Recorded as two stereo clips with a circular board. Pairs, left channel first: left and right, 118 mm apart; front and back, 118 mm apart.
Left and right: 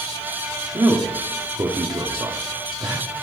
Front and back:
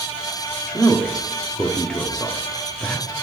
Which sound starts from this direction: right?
A man speaking, at 0.7 s.